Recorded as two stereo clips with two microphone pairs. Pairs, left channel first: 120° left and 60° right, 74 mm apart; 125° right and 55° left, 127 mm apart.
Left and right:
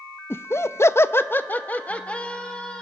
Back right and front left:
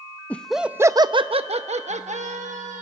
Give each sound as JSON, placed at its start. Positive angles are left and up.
{"t": 0.3, "sound": "laughter", "azimuth_deg": 160, "distance_m": 0.6}